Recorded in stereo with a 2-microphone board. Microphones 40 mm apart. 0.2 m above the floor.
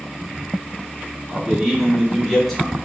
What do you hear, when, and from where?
1.3 s a man speaking: 15° right (ahead or behind), 1.8 m; by 2.8 s 10° left (ahead or behind), 1.7 m